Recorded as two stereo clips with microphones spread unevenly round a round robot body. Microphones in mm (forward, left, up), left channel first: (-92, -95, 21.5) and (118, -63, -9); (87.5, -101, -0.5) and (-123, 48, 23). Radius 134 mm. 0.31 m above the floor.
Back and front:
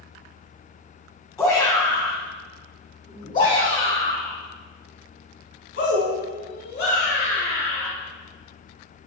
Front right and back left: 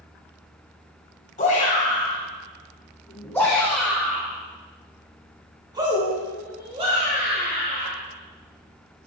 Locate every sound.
1.4 s a shout: 90° right, 2.5 m; by 7.9 s 155° right, 4 m